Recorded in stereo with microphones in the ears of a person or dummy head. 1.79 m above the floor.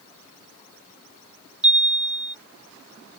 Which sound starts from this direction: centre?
A chime, at 1.6 s.